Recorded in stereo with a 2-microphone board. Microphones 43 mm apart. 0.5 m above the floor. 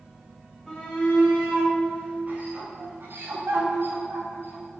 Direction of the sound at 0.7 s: Centre (ahead or behind).